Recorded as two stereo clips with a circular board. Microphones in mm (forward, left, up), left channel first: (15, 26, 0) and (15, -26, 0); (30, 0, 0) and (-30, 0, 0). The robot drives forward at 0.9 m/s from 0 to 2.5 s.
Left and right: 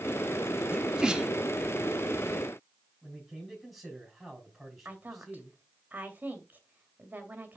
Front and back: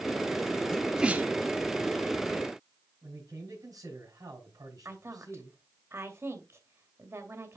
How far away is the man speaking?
About 4.5 m.